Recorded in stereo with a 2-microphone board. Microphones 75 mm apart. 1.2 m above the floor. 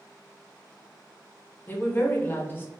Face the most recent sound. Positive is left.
turn(degrees=25)  # may be behind; listen again after turning